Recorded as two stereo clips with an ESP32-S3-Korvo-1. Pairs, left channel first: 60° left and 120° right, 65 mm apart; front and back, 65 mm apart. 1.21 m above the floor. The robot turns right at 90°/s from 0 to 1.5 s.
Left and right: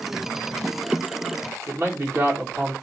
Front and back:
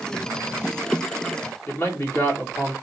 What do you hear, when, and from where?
1.7 s a man speaking: 60° right, 1.8 m